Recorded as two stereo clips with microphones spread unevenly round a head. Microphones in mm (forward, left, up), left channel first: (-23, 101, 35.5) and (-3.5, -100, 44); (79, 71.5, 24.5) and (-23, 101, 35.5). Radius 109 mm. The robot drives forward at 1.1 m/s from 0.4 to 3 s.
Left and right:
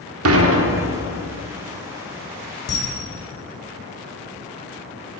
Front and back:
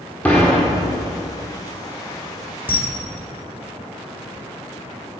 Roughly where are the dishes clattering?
Right.